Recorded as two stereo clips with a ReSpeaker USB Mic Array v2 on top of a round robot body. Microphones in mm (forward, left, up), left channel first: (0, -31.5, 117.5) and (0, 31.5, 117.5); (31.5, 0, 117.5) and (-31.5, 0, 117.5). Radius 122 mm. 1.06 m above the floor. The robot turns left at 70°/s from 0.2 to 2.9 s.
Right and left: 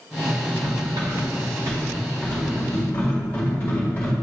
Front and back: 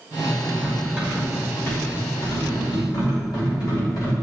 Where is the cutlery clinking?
140° left, 2.5 m; by 4.1 s 25° right, 2.5 m.